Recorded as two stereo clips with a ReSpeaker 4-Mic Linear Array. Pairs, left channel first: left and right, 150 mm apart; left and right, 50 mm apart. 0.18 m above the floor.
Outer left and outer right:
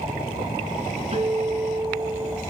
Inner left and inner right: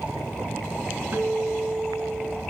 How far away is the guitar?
About 2 m.